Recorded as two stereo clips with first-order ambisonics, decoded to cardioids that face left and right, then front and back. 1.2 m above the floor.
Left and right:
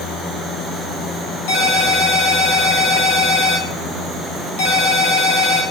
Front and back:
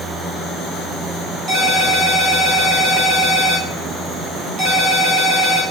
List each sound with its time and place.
1.5 s a ringtone: 105° left, 1.7 m